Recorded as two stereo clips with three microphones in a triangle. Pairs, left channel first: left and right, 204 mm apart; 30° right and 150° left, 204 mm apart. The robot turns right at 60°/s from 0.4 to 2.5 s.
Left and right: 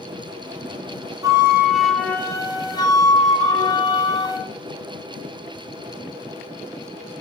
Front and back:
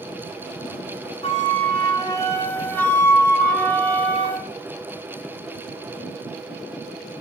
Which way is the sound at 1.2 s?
35° right.